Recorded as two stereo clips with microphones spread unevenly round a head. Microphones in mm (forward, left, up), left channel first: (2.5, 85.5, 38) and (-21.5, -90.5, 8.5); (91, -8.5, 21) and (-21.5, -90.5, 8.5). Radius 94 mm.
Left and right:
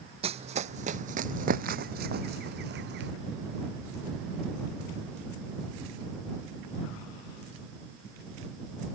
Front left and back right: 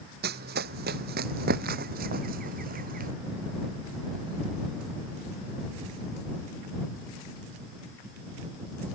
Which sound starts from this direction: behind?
Running footsteps, at 0.2 s.